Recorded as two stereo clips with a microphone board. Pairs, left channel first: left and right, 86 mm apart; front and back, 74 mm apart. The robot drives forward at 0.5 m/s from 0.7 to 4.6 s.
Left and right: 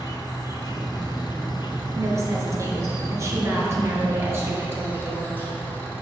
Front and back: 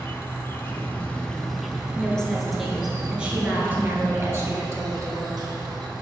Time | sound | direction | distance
0.0 | an insect | 55° left | 0.9 m
1.9 | a woman speaking | 70° right | 1.3 m